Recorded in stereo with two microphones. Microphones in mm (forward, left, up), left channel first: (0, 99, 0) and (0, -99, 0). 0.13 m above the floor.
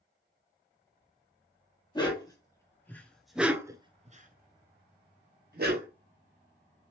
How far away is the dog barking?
About 1.4 m.